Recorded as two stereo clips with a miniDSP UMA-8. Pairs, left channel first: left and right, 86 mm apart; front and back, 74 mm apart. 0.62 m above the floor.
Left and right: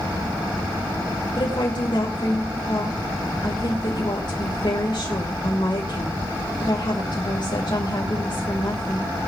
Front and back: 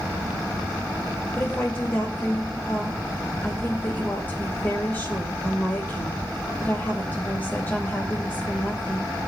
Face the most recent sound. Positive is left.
turn(degrees=65)